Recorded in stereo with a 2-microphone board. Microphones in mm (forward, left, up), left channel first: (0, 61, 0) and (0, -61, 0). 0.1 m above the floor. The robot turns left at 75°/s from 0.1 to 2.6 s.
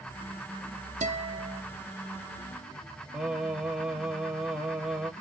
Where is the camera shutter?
I don't hear a camera shutter.